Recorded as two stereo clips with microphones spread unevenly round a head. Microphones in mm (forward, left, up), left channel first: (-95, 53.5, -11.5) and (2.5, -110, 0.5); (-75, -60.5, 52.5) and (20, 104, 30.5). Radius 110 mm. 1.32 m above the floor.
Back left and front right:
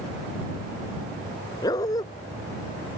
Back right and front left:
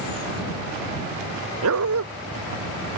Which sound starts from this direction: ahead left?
A dog barking, at 1.6 s.